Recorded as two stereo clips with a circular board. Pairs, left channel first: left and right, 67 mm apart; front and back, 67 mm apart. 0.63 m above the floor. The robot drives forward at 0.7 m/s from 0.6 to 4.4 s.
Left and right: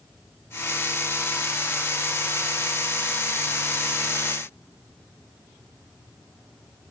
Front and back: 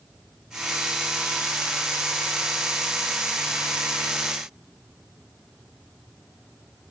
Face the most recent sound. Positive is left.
No sound to turn to.